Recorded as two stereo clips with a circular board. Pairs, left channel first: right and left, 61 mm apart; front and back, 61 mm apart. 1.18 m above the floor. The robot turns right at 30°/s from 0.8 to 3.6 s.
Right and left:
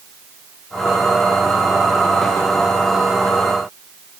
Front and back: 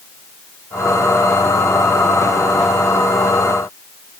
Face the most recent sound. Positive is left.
No sound to turn to.